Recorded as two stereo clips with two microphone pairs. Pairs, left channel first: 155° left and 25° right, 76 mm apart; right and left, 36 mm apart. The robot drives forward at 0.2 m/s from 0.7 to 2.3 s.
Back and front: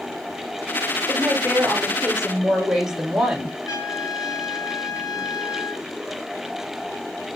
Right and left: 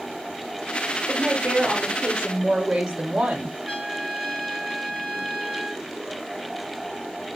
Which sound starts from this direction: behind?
A trumpet, at 3.7 s.